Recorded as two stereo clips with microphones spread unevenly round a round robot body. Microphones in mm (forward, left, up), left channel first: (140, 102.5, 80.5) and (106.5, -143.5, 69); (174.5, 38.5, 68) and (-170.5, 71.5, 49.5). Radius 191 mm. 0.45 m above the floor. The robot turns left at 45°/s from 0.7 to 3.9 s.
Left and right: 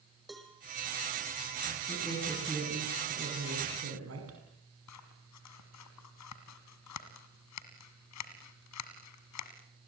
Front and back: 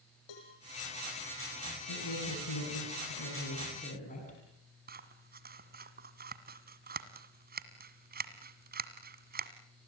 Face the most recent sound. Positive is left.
turn(degrees=110)